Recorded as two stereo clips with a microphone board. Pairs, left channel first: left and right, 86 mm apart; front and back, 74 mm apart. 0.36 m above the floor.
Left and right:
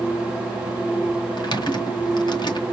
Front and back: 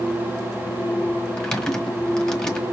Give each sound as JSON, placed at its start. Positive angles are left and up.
{"t": 1.4, "sound": "typing on a keyboard", "azimuth_deg": 85, "distance_m": 1.5}